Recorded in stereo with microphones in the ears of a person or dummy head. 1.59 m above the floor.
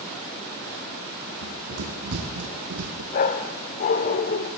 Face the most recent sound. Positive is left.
turn(degrees=40)  # may be behind; listen again after turning